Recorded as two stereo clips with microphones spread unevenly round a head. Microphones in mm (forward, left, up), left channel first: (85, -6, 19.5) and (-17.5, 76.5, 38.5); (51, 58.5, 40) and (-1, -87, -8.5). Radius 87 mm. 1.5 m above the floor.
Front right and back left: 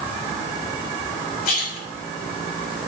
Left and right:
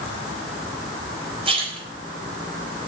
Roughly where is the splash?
Ahead right.